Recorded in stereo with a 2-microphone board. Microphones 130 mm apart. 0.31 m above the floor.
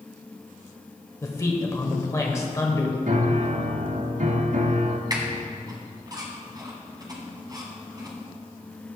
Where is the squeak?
30° right (ahead or behind), 1.4 m.